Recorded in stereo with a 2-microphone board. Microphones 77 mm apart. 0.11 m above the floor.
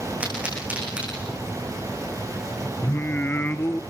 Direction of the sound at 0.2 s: 15° right (ahead or behind).